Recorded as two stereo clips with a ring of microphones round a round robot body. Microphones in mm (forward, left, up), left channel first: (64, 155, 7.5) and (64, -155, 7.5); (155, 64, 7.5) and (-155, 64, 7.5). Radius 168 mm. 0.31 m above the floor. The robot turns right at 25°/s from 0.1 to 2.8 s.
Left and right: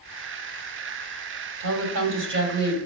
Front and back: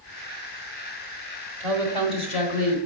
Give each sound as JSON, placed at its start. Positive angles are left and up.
{"t": 1.6, "sound": "a woman speaking", "azimuth_deg": -80, "distance_m": 1.8}